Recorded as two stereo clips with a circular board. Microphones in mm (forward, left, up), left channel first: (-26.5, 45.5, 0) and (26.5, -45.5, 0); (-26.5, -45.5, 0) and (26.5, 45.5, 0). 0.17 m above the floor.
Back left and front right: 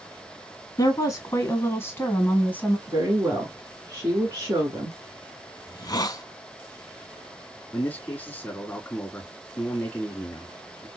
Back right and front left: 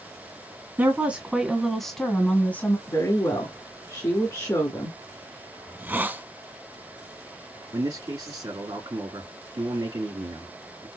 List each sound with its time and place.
0.8 s a woman speaking: 115° left, 1.6 m; by 2.8 s 175° right, 1.7 m
2.9 s a woman speaking: 100° right, 2.0 m
5.7 s a hiss: 120° left, 0.5 m
7.7 s a man speaking: 50° left, 1.9 m